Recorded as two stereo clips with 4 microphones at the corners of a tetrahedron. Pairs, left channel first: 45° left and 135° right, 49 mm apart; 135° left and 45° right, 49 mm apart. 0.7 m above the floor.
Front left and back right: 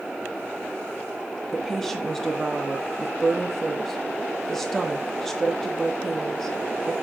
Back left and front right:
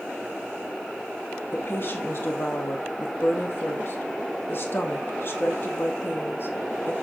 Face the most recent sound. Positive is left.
turn(degrees=125)